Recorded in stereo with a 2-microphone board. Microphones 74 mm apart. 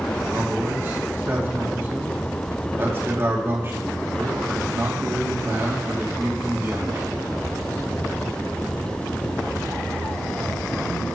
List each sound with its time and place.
0.2 s a man speaking: 35° right (ahead or behind), 2.5 m